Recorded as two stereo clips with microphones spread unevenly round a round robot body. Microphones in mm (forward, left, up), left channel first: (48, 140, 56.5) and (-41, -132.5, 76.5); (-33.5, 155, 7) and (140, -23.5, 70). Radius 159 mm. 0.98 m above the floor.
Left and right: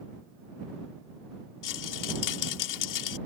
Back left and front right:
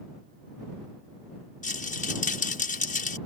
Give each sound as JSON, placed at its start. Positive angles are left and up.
{"t": 1.6, "sound": "a rattle", "azimuth_deg": 80}